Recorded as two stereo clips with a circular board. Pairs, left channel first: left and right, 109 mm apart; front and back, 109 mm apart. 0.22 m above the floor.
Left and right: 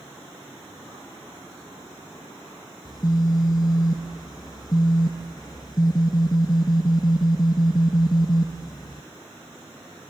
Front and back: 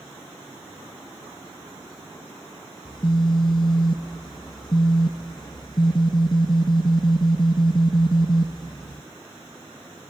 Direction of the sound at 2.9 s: 40° left.